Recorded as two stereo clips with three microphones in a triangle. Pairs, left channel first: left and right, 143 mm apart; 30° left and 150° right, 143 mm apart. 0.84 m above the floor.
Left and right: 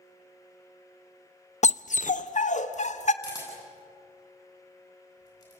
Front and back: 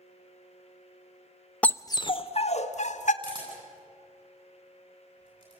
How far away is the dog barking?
About 0.5 m.